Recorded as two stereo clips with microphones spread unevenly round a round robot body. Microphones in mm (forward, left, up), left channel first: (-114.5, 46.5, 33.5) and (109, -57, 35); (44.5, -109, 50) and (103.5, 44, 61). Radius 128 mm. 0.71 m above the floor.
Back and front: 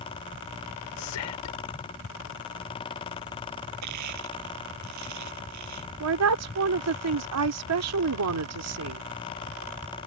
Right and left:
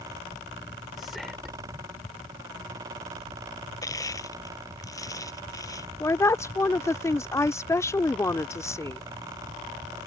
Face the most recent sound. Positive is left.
turn(degrees=-40)